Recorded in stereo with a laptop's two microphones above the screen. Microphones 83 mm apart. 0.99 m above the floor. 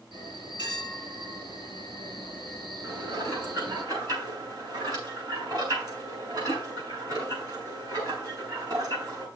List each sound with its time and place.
0.1 s a bell: 75° right (ahead or behind), 4.5 m
2.8 s dishes clattering: 55° right (ahead or behind), 6.5 m